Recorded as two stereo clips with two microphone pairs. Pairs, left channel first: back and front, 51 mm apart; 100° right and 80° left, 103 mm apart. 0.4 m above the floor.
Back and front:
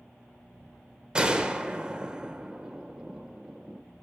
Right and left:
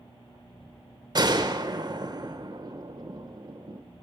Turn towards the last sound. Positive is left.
turn(degrees=65)